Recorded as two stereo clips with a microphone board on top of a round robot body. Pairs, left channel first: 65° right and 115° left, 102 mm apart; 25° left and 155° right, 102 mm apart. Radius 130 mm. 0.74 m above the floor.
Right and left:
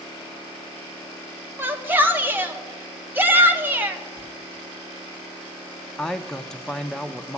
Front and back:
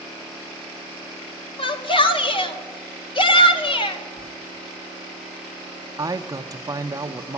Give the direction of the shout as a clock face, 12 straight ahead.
10 o'clock.